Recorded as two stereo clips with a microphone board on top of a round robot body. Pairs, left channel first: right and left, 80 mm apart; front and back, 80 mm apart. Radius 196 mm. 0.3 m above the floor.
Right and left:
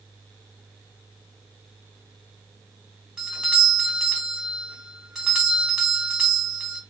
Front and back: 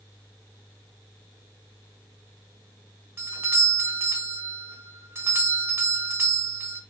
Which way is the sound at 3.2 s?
165° left.